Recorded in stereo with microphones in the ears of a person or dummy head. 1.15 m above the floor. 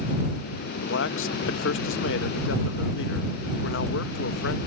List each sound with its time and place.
0.8 s a man speaking: 55° left (ahead or behind)